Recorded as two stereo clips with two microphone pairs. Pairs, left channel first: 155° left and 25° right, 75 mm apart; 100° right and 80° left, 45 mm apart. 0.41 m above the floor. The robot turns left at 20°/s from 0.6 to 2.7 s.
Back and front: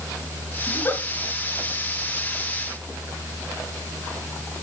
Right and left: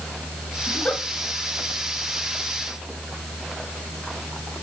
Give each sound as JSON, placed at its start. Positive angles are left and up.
{"t": 0.7, "sound": "a giggle", "azimuth_deg": -155, "distance_m": 2.0}